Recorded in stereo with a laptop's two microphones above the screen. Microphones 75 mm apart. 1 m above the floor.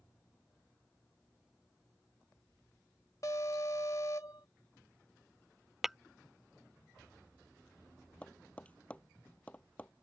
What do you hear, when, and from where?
3.2 s an alarm: 45° left (ahead or behind)
5.8 s tapping: 5° right (ahead or behind)
8.2 s tapping: 15° left (ahead or behind)